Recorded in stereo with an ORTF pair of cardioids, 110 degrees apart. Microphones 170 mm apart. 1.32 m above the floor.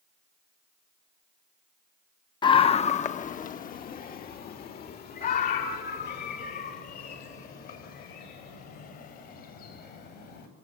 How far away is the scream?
About 1.1 m.